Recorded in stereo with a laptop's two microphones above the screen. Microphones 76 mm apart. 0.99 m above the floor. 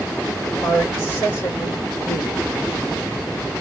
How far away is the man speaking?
About 2.0 m.